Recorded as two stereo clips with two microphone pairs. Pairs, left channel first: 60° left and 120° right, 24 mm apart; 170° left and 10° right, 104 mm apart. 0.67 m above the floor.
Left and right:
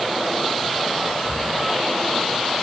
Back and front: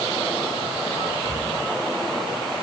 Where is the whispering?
50° left, 6.5 m.